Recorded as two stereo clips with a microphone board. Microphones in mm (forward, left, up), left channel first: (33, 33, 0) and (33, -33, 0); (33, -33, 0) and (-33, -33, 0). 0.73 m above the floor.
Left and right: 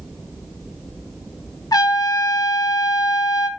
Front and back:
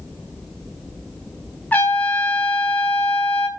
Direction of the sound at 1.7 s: 65° left.